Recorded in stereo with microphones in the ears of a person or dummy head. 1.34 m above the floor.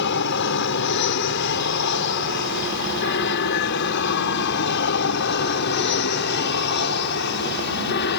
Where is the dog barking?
I don't hear a dog barking.